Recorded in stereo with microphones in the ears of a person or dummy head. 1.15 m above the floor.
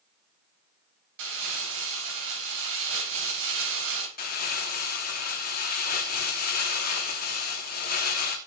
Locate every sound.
1.2 s crumpling: 65° right (ahead or behind), 4 m
4.2 s crumpling: 40° left (ahead or behind), 3 m